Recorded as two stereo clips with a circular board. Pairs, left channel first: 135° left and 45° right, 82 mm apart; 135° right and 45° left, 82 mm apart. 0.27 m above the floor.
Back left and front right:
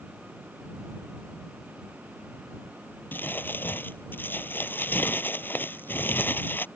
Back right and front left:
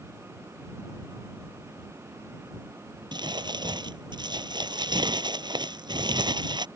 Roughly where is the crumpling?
Left.